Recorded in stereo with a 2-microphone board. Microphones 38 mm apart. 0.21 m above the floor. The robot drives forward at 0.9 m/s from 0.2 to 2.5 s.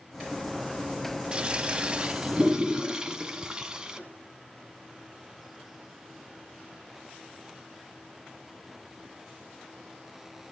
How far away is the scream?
No scream in this recording.